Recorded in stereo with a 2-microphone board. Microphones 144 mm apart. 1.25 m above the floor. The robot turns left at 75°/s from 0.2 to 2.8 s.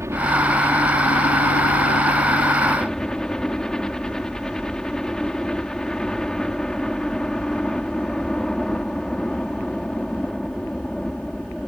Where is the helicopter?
160° right; by 11.7 s 5° left.